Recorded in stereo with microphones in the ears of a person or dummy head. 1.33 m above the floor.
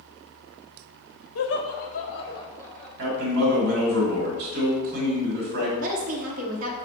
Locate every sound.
1.4 s laughter: 70° left (ahead or behind), 0.8 m; by 2.9 s 10° left (ahead or behind), 1.3 m
3.0 s a man speaking: 50° right (ahead or behind), 1.5 m
5.8 s a woman speaking: 45° right (ahead or behind), 0.8 m